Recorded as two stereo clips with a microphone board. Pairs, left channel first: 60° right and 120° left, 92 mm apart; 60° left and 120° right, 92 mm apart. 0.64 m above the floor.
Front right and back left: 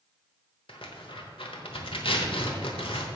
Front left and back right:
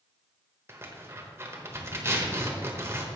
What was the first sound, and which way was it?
Tearing paper, 60° right.